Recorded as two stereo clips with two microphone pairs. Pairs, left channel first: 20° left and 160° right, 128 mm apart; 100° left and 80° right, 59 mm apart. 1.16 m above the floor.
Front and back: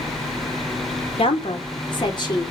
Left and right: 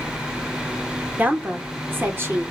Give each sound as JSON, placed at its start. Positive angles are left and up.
{"t": 1.2, "sound": "a woman speaking", "azimuth_deg": -20, "distance_m": 1.5}